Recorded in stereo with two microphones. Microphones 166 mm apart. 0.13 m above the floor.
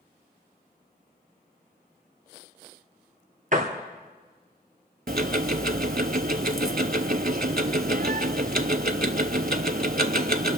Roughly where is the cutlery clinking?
No cutlery clinking in this recording.